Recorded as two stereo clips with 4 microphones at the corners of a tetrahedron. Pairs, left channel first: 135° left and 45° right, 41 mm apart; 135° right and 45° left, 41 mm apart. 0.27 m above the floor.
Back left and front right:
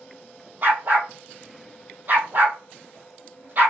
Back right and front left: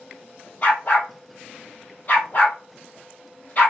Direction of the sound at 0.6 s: 90° right.